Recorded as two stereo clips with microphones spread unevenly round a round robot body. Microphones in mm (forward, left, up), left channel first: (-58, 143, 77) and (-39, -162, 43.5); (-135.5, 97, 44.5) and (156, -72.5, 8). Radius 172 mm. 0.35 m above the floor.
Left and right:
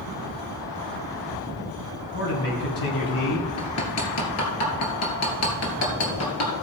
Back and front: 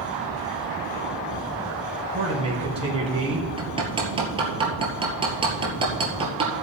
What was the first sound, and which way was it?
A man speaking, 40° left.